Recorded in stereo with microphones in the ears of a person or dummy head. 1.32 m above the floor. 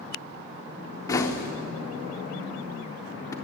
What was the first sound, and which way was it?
Knocking, 15° left (ahead or behind).